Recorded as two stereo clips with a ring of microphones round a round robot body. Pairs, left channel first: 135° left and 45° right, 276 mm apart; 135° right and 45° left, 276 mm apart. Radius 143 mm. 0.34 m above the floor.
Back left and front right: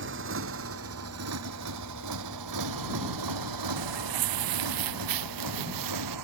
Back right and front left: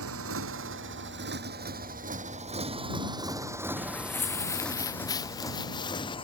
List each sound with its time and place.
0.0 s a motorcycle: 5° left; by 6.2 s 65° right
3.8 s footsteps: 50° right; by 6.2 s 60° right